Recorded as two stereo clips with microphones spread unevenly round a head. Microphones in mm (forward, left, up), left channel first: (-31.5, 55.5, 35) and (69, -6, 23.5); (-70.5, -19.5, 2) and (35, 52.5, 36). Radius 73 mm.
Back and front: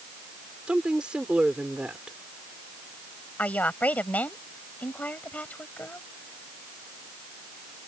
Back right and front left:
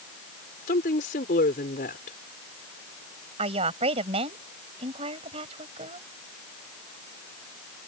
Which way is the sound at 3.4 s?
70° left.